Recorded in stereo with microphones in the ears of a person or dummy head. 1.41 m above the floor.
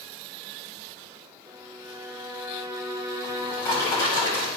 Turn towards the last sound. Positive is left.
turn(degrees=15)  # may be behind; listen again after turning